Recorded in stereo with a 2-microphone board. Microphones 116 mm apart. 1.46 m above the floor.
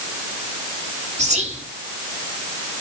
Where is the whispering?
75° right (ahead or behind), 3 m.